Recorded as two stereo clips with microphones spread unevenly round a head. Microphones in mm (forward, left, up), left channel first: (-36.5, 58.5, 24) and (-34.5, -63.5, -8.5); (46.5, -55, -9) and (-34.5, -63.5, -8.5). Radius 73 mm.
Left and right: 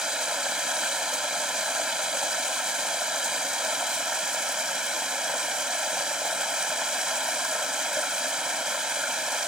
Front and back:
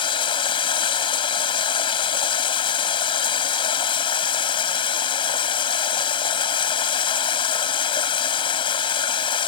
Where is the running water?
Straight ahead.